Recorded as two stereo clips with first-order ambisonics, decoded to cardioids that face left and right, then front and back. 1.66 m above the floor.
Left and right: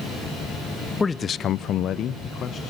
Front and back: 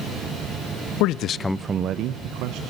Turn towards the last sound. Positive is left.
turn(degrees=155)